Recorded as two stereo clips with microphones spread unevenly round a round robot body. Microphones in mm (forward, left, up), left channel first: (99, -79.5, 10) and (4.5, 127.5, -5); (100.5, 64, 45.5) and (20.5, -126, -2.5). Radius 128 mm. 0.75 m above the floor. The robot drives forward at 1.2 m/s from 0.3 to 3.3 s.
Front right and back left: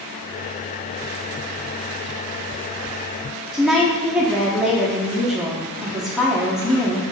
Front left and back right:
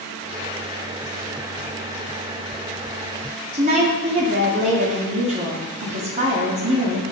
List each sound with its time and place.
3.5 s a woman speaking: 160° right, 1.9 m